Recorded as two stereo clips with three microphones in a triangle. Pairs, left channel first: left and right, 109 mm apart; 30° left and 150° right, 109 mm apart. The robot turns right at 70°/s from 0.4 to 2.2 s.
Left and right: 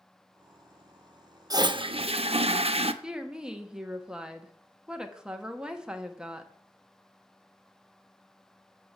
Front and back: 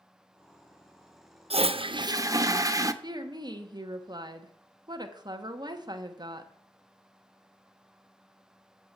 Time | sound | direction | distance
1.5 | a toilet flushing | 145° right | 0.6 m
3.0 | a woman speaking | 170° right | 1.1 m